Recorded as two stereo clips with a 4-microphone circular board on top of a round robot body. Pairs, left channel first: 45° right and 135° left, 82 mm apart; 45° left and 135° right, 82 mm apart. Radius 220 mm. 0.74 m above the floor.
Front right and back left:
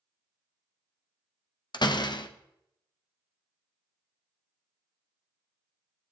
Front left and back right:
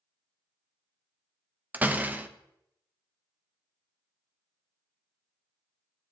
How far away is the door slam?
About 1.0 m.